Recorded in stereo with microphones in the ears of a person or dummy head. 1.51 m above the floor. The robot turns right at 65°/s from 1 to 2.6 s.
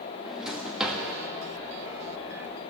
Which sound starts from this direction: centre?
A drawer, at 0.2 s.